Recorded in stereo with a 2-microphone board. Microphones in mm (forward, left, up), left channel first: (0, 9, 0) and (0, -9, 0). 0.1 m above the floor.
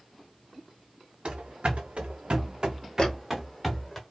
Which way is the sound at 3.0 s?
50° left (ahead or behind).